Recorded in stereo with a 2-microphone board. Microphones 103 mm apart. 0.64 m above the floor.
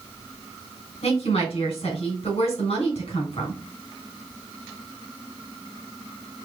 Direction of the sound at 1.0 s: 75° left (ahead or behind).